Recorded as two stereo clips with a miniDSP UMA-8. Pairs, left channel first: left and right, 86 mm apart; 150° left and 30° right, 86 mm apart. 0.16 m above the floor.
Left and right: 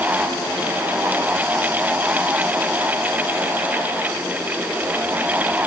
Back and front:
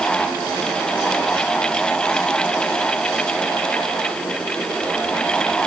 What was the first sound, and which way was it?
Only background noise.